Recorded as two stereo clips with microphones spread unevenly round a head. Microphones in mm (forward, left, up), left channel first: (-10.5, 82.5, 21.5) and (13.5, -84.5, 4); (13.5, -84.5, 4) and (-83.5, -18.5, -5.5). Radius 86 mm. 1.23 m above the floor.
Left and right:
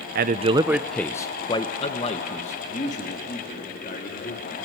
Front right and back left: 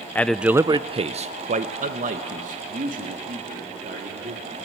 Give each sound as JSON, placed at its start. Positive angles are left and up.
{"t": 0.1, "sound": "a man speaking", "azimuth_deg": -110, "distance_m": 0.6}